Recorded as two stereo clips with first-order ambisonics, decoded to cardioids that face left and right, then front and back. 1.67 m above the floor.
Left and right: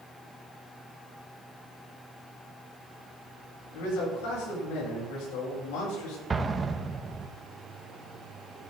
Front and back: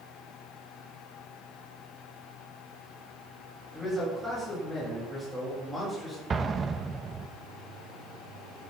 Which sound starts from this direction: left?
A man speaking, at 3.7 s.